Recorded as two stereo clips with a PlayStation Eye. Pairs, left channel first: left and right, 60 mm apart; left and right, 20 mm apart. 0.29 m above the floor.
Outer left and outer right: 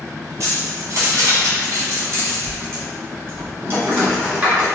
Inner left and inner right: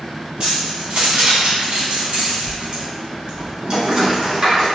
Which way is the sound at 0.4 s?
60° right (ahead or behind).